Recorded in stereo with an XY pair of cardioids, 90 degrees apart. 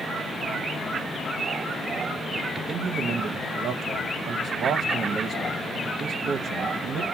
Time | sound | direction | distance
2.5 | a man speaking | 70° right | 0.6 m